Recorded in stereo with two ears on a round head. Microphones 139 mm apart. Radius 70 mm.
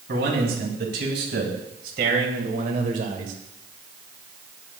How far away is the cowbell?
No cowbell in this recording.